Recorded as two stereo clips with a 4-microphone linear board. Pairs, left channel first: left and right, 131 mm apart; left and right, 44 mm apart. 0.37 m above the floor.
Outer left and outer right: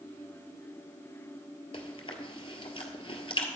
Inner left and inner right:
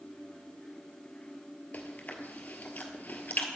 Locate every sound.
1.7 s chewing: 40° left (ahead or behind), 1.5 m